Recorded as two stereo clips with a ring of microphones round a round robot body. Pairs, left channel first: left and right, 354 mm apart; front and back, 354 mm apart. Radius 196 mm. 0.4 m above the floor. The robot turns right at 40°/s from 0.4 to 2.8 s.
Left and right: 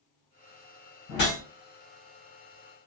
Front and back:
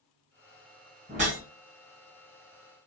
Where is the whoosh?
105° left, 2.0 m; by 1.4 s 115° left, 2.0 m.